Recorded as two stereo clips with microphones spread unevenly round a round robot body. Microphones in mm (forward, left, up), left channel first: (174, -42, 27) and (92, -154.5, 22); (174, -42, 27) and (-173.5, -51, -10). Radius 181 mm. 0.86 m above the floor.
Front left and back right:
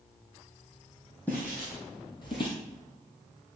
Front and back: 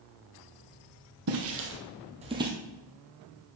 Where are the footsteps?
135° left, 1.5 m; by 2.5 s 95° left, 1.1 m.